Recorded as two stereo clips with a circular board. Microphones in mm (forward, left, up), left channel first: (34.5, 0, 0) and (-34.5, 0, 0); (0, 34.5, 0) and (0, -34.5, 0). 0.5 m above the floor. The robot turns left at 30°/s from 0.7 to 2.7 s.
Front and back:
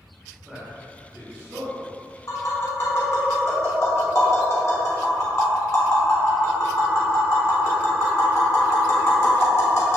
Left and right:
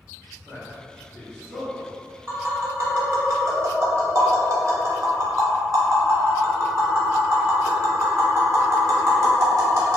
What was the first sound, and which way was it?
A man speaking, 115° right.